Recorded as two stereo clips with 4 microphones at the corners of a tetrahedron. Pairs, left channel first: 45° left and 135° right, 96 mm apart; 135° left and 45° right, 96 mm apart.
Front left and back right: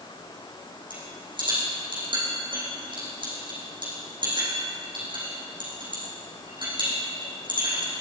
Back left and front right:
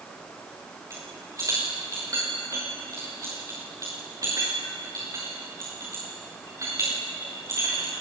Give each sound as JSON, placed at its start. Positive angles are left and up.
{"t": 0.9, "sound": "a rattle", "azimuth_deg": -100, "distance_m": 8.5}